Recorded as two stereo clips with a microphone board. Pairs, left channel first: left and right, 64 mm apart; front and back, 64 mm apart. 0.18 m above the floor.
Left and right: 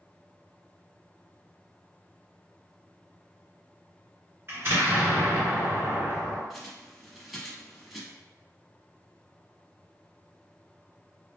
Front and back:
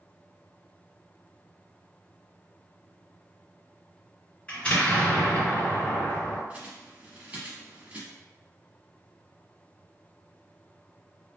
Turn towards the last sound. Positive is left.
turn(degrees=180)